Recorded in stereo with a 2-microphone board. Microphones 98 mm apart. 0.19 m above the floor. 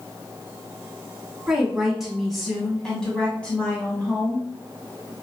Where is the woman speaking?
5° right (ahead or behind), 1.4 m; by 4.5 s 15° left (ahead or behind), 1.8 m.